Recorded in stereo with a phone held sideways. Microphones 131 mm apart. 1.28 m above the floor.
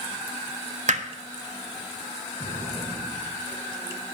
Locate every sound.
0.9 s hammering: 60° right (ahead or behind), 1.2 m
2.4 s an explosion: 80° right, 5 m